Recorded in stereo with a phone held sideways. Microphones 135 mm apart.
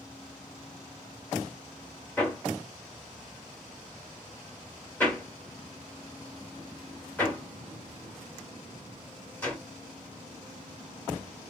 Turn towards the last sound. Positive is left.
turn(degrees=10)  # may be behind; listen again after turning